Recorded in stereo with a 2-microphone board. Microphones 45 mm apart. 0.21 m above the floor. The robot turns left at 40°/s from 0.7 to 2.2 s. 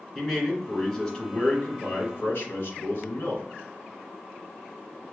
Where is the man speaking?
175° right, 2.5 m; by 3.5 s 125° left, 2.5 m.